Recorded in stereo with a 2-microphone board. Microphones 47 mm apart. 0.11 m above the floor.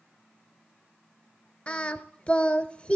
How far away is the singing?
About 0.7 m.